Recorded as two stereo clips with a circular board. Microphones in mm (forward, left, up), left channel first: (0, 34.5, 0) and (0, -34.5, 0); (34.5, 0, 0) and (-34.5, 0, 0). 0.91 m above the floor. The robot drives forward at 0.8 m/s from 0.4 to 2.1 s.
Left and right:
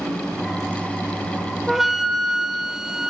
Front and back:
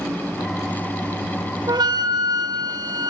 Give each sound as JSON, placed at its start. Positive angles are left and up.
{"t": 1.7, "sound": "a flute", "azimuth_deg": -175, "distance_m": 0.9}